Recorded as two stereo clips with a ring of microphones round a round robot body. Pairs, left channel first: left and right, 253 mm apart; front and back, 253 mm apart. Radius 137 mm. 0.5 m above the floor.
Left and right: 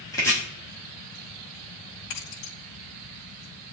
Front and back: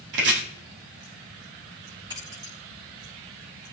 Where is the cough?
No cough in this recording.